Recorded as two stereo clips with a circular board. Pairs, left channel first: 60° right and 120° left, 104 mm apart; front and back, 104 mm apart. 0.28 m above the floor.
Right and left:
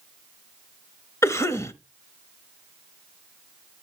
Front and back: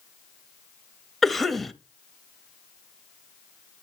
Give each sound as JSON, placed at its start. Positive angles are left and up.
{"t": 1.2, "sound": "a cough", "azimuth_deg": -90, "distance_m": 1.0}